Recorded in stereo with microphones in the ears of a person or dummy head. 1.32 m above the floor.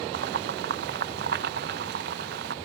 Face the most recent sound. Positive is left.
turn(degrees=-65)  # may be behind; listen again after turning